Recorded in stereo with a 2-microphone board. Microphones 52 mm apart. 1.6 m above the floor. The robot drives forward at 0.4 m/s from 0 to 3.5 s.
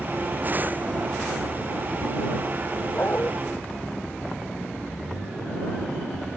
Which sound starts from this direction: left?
A dog barking, at 2.9 s.